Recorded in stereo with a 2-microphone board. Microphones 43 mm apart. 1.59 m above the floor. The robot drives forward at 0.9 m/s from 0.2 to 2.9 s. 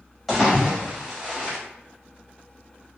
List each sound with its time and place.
0.3 s a splash: centre (ahead or behind), 2 m